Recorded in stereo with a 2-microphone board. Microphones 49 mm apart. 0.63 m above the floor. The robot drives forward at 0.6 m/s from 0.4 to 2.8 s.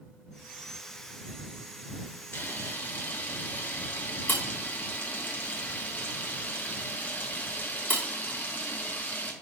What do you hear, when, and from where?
2.3 s a camera shutter: 45° left (ahead or behind), 1.2 m; by 9.3 s 35° left (ahead or behind), 1.4 m